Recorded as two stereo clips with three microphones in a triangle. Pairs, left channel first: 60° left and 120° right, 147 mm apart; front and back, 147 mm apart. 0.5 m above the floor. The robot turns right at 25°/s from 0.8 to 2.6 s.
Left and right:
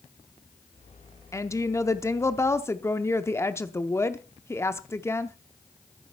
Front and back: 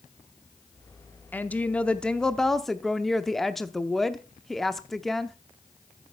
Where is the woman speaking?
55° left, 0.6 m; by 5.4 s 85° left, 0.6 m.